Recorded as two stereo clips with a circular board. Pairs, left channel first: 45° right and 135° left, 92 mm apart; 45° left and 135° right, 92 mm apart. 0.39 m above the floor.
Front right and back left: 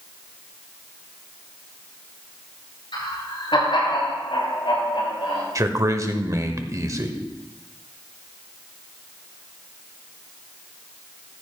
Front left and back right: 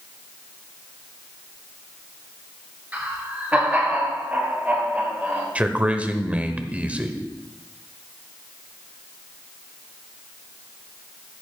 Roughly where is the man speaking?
Behind.